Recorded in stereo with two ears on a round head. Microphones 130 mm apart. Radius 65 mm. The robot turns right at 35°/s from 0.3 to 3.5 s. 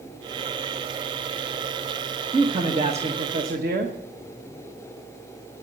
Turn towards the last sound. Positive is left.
turn(degrees=-110)